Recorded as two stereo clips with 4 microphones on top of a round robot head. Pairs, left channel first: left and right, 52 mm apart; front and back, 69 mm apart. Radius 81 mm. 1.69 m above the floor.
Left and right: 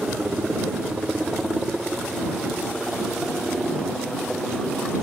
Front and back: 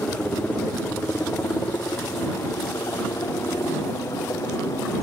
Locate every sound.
0.0 s a helicopter: 30° right; by 5.0 s 5° left